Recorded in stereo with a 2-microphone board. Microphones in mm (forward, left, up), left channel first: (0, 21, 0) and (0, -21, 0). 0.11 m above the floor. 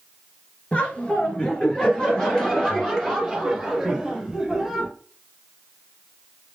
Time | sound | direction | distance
0.7 | laughter | 30° left (ahead or behind) | 2.5 m